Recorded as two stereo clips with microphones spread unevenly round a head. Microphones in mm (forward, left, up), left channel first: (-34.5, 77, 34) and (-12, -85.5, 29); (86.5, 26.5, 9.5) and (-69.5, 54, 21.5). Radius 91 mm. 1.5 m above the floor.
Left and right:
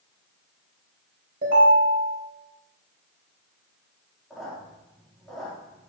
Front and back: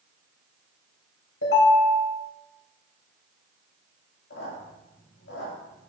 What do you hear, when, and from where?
1.4 s a ringtone: 40° right, 3.5 m
4.3 s a squeak: 10° left, 2.5 m